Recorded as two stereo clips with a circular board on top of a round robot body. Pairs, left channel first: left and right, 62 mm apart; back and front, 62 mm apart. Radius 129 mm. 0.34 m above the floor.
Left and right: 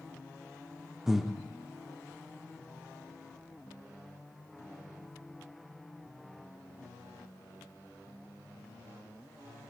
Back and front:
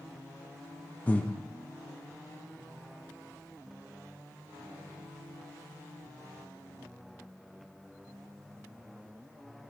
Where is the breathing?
165° right, 1.3 m.